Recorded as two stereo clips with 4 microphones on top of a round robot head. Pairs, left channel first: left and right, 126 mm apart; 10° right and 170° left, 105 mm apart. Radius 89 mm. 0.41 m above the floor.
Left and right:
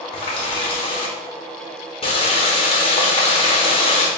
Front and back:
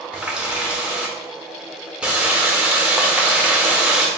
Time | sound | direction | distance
0.1 | a running tap | 95° left | 0.9 m